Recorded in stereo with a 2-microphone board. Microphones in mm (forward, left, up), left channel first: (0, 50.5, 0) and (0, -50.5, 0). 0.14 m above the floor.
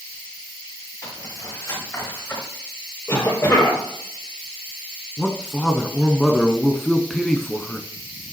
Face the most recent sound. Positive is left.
turn(degrees=5)  # may be behind; listen again after turning